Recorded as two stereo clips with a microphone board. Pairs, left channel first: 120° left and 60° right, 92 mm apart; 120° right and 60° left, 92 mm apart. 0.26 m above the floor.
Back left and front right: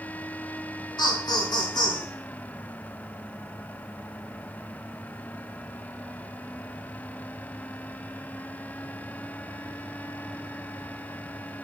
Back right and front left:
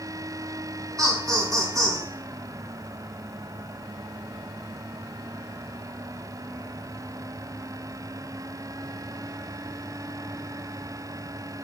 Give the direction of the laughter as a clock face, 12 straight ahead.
9 o'clock.